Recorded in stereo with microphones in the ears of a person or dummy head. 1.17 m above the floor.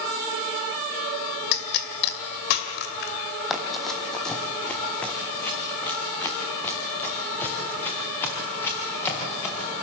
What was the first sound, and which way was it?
A pop, 65° left (ahead or behind).